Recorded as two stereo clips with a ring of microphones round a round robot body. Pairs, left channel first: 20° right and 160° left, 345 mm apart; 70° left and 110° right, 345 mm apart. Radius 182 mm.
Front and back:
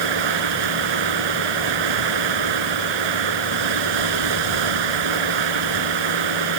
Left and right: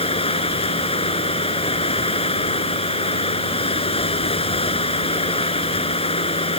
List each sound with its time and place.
0.0 s running water: 140° left